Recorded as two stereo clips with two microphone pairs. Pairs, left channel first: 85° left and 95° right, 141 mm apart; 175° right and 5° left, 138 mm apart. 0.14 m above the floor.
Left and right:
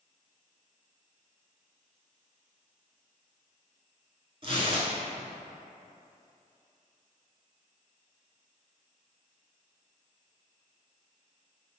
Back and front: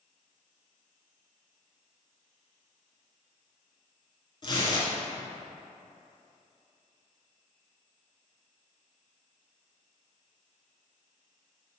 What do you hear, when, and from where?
4.4 s tearing paper: 130° right, 0.7 m